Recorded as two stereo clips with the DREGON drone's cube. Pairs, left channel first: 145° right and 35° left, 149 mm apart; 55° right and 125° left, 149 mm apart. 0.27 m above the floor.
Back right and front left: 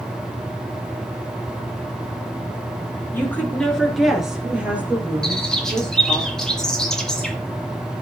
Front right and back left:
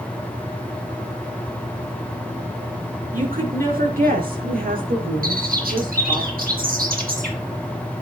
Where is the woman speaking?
140° left, 4 m; by 6.2 s 105° left, 7.5 m.